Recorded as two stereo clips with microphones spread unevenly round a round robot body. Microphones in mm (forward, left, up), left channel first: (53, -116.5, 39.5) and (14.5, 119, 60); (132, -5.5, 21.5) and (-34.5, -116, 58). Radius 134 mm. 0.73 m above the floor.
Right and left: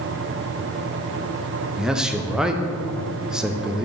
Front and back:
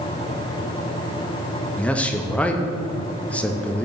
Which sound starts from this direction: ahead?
A man speaking, at 1.8 s.